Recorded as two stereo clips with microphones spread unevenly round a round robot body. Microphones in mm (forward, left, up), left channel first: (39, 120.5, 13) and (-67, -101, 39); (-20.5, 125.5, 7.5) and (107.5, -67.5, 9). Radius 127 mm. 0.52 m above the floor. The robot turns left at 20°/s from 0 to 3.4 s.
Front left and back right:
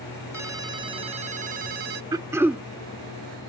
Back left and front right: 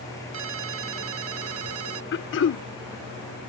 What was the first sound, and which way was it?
A ringtone, 35° right.